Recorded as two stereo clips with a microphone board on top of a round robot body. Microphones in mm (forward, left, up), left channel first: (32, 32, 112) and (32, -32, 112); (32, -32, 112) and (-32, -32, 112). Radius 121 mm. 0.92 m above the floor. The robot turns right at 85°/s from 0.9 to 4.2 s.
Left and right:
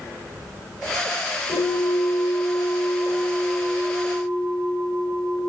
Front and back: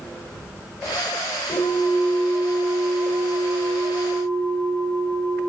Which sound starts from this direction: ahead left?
A bell, at 1.5 s.